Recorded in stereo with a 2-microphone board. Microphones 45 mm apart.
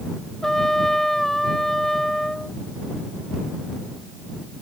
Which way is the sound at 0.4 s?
10° left (ahead or behind).